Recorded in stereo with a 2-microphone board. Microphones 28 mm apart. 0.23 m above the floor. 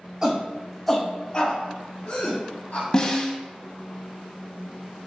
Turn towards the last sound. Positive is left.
turn(degrees=25)  # may be behind; listen again after turning